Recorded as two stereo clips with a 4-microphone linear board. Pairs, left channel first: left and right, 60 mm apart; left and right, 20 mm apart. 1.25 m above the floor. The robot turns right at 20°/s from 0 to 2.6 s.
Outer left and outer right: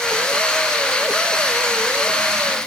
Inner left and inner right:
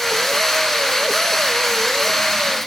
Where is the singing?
No singing in this recording.